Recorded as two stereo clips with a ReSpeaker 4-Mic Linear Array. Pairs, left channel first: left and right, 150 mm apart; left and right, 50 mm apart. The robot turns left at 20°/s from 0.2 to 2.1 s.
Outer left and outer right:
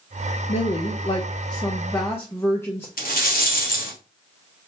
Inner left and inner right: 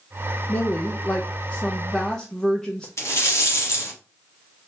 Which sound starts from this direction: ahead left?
A woman speaking, at 0.5 s.